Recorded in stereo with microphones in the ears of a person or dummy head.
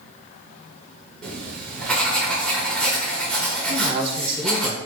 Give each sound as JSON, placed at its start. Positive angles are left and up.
{"t": 1.2, "sound": "writing", "side_deg": 10, "distance_m": 1.0}
{"t": 3.7, "sound": "a man speaking", "side_deg": -35, "distance_m": 0.9}